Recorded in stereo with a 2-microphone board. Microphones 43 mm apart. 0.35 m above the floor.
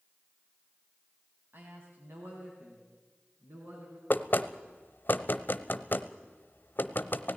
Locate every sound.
1.5 s a man speaking: 55° right (ahead or behind), 2.5 m; by 4.0 s 70° right (ahead or behind), 5 m
4.1 s knocking: 50° left (ahead or behind), 0.8 m